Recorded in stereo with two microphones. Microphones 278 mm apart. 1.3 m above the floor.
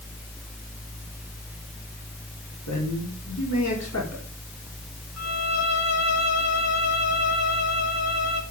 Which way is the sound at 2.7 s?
80° left.